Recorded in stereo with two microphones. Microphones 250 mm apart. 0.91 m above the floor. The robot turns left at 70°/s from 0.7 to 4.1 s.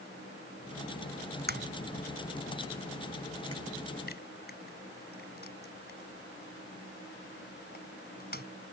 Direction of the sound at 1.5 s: 45° right (ahead or behind).